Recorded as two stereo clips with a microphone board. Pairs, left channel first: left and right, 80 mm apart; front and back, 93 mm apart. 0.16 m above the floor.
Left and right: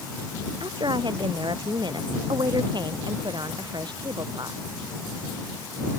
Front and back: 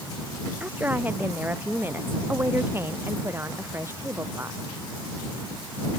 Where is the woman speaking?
105° right; by 4.6 s 115° right.